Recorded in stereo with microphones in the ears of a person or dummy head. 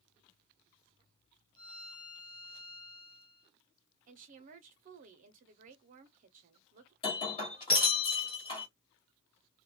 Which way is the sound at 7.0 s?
35° left (ahead or behind).